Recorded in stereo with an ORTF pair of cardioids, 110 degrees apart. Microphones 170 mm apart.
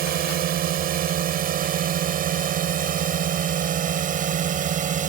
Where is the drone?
65° right; by 5.1 s 50° right.